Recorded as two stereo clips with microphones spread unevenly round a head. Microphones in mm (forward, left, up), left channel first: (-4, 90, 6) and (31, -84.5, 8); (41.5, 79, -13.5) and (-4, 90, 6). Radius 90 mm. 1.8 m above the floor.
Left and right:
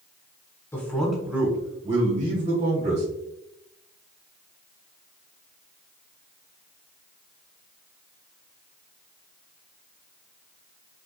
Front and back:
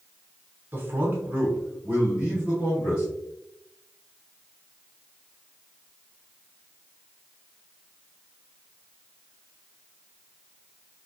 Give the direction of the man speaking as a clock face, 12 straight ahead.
6 o'clock.